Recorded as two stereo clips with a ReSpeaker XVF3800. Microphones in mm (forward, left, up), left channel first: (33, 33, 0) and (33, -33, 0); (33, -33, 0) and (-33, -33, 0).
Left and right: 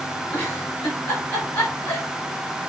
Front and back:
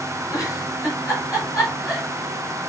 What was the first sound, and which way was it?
A giggle, 30° left.